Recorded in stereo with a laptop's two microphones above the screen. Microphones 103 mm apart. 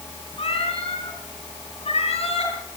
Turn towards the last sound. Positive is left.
turn(degrees=75)  # may be behind; listen again after turning